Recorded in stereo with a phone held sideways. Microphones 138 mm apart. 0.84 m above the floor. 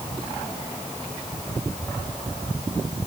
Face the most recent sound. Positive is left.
No sound to turn to.